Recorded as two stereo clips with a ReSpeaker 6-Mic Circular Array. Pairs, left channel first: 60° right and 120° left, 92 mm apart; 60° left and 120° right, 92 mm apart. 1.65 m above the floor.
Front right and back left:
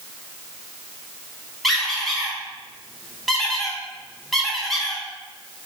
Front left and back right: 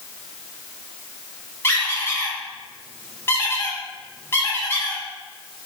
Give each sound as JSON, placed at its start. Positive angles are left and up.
{"t": 1.6, "sound": "a squeak", "azimuth_deg": 25, "distance_m": 0.9}